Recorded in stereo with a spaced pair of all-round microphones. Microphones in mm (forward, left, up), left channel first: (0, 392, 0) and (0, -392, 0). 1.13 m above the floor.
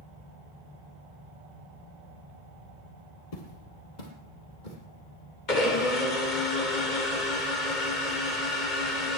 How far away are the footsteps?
About 2.5 m.